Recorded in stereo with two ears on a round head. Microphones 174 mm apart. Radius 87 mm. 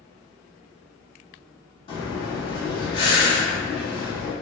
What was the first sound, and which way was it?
Breathing, 30° left (ahead or behind).